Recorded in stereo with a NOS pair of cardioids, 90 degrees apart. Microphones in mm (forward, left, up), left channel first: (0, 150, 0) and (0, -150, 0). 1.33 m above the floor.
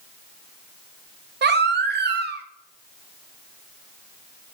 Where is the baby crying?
40° right, 1.2 m.